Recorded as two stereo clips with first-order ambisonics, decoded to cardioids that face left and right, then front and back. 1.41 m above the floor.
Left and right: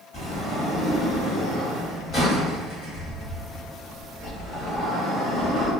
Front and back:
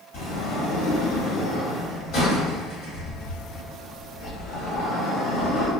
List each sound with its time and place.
0.1 s a sliding door: 15° left, 1.7 m